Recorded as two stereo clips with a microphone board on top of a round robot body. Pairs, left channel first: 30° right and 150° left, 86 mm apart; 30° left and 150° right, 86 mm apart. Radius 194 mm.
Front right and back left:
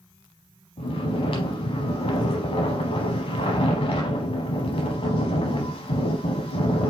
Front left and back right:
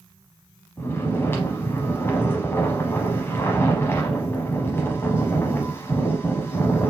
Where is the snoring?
35° right, 0.8 m.